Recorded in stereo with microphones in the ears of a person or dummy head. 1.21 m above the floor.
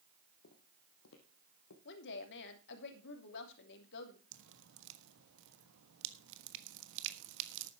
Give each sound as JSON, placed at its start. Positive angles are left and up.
{"t": 0.4, "sound": "footsteps", "side_deg": 50, "distance_m": 1.8}
{"t": 1.9, "sound": "a woman speaking", "side_deg": 55, "distance_m": 3.0}
{"t": 4.3, "sound": "dripping", "side_deg": -75, "distance_m": 1.2}